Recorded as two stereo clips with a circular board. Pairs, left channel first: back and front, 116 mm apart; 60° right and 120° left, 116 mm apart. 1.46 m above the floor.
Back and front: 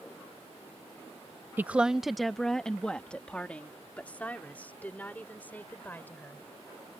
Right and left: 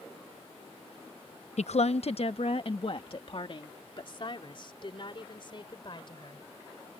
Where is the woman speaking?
75° right; by 6.4 s 105° right.